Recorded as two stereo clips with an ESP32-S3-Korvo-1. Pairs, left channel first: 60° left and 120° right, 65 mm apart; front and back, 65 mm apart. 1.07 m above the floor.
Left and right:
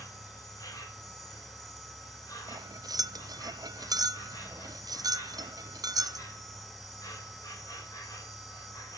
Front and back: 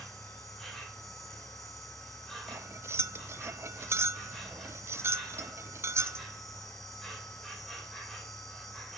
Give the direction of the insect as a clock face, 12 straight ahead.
9 o'clock.